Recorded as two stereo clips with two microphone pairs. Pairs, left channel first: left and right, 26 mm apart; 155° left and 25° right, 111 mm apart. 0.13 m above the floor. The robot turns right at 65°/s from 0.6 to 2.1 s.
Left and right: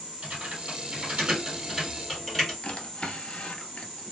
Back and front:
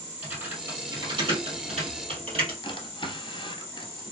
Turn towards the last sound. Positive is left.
turn(degrees=115)